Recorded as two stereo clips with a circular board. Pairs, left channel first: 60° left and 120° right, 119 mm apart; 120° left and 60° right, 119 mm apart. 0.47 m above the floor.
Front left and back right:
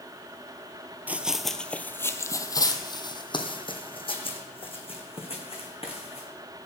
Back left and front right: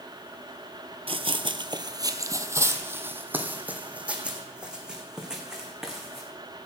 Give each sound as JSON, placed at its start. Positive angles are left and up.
{"t": 1.1, "sound": "running footsteps", "azimuth_deg": -45, "distance_m": 0.7}